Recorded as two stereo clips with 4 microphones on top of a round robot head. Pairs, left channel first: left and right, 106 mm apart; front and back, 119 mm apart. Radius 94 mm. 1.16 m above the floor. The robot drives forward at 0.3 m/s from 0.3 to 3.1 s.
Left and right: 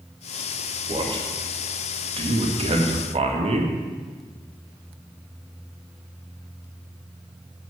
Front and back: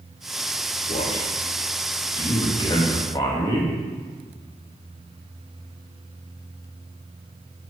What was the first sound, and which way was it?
A man speaking, 50° right.